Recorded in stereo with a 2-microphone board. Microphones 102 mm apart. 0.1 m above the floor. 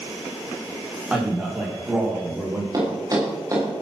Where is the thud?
35° right (ahead or behind), 8.5 m.